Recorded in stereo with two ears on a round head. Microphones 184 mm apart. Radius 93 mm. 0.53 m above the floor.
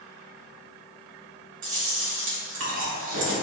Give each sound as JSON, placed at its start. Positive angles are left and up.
{"t": 1.6, "sound": "chewing", "side_deg": -65, "distance_m": 1.6}